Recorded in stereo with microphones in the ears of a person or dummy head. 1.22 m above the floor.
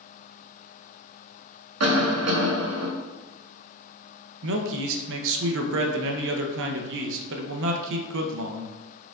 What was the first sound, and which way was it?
A cough, 80° right.